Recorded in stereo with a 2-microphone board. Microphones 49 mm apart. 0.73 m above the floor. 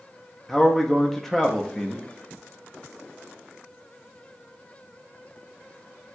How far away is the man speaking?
About 0.6 m.